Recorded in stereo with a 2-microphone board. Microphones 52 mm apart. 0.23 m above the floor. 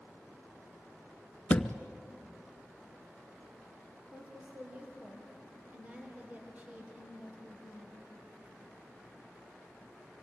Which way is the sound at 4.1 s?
25° right (ahead or behind).